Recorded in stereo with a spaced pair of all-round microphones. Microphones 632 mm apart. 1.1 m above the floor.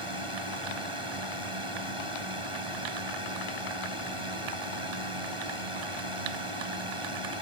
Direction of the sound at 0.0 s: 50° right (ahead or behind).